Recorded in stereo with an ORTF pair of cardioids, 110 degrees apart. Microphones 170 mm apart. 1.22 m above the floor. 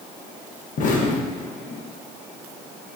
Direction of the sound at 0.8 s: 50° left.